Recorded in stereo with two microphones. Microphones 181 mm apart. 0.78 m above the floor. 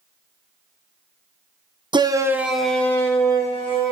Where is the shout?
25° right (ahead or behind), 0.7 m; by 3.9 s 25° left (ahead or behind), 1.5 m.